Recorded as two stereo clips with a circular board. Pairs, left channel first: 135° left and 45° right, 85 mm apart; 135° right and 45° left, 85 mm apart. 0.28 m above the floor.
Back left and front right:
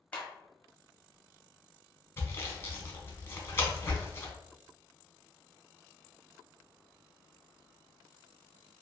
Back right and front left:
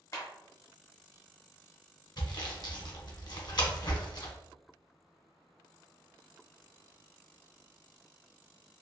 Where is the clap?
155° right, 1.0 m.